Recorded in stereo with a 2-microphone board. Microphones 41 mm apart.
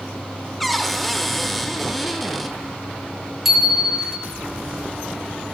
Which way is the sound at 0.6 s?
Centre (ahead or behind).